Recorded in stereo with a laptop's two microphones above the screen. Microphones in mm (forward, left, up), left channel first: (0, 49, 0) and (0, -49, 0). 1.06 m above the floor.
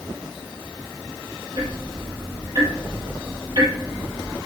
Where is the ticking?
55° right (ahead or behind), 3.5 m.